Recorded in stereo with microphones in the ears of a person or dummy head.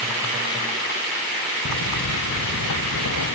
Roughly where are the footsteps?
Left.